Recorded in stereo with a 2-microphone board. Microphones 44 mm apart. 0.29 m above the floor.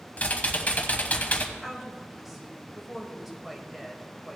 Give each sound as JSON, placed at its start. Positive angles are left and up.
{"t": 0.2, "sound": "typing on a keyboard", "side_deg": 40, "distance_m": 1.1}
{"t": 1.6, "sound": "a woman speaking", "side_deg": -5, "distance_m": 1.5}